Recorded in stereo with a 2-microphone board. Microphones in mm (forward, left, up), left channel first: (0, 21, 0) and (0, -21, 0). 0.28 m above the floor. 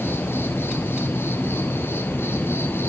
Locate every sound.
0.0 s an insect: 70° left (ahead or behind), 0.7 m